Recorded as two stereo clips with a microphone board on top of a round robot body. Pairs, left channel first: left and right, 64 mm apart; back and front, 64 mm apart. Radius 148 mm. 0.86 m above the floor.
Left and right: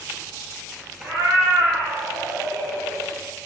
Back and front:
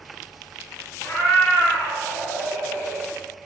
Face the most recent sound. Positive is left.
turn(degrees=-95)